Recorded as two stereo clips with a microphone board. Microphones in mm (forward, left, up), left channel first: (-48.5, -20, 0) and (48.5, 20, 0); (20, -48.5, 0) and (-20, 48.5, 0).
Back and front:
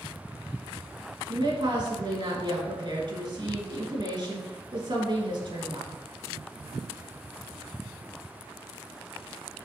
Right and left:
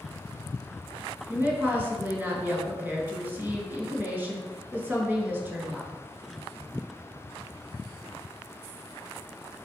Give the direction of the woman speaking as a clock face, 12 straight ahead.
11 o'clock.